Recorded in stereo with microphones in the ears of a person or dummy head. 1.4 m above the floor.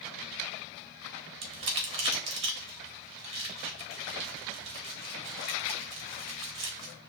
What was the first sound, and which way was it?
Crumpling, 35° right (ahead or behind).